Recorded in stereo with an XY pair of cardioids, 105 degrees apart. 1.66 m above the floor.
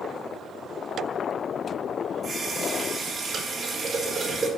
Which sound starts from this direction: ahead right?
A running tap, at 2.2 s.